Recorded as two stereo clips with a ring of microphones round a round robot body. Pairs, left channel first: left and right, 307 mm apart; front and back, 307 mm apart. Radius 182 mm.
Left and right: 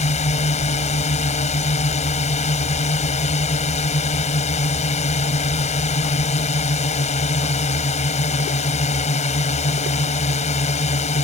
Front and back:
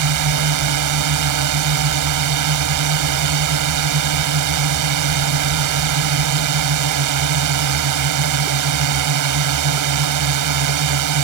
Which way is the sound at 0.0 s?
160° left.